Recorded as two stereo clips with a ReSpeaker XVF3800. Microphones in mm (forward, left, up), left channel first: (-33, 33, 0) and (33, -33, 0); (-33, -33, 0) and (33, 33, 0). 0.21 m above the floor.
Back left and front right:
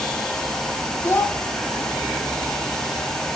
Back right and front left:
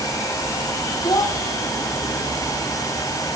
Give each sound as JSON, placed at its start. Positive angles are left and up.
{"t": 1.0, "sound": "a child speaking", "azimuth_deg": -165, "distance_m": 1.0}